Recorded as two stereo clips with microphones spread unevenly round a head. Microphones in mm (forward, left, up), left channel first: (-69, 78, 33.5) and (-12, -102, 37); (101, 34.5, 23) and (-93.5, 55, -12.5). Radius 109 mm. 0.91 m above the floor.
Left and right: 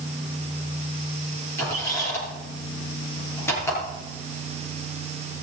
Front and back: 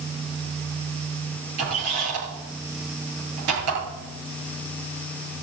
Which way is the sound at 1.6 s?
175° right.